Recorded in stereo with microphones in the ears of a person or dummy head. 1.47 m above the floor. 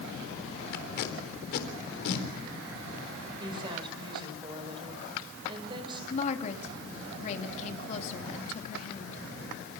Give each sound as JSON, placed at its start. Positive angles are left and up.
{"t": 0.7, "sound": "tape being pulled", "side_deg": 55, "distance_m": 4.0}
{"t": 3.4, "sound": "a woman speaking", "side_deg": -30, "distance_m": 5.0}
{"t": 6.1, "sound": "a woman speaking", "side_deg": 40, "distance_m": 3.0}